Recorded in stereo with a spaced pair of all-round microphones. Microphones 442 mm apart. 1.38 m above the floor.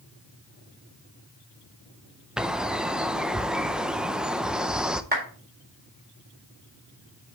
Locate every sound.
2.4 s a bird: centre (ahead or behind), 0.6 m
5.1 s a clap: 20° right (ahead or behind), 4 m